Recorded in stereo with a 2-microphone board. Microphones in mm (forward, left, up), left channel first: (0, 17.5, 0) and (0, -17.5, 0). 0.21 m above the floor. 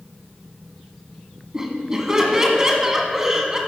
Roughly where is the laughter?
Centre.